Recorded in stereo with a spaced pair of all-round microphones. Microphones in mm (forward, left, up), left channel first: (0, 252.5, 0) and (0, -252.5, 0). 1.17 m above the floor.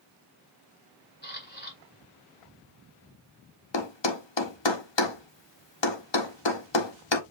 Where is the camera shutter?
20° left (ahead or behind), 2 m.